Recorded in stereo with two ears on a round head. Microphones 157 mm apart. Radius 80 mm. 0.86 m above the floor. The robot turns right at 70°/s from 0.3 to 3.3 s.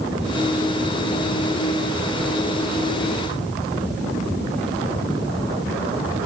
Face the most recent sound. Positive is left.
No sound to turn to.